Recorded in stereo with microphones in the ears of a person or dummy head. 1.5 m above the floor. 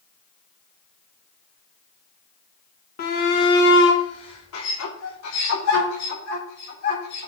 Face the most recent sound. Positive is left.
turn(degrees=85)